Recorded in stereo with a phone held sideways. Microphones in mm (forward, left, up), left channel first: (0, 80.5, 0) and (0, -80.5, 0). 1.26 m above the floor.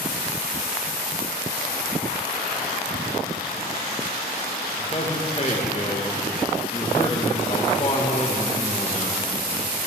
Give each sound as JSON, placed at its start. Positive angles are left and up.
{"t": 4.8, "sound": "a man speaking", "side_deg": 40, "distance_m": 1.6}